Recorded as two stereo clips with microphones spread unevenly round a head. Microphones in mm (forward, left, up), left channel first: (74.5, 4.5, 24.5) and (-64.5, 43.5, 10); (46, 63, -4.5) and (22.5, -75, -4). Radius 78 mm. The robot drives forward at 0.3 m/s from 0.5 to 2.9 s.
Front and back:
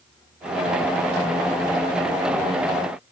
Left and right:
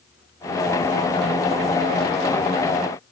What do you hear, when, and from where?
Only background noise.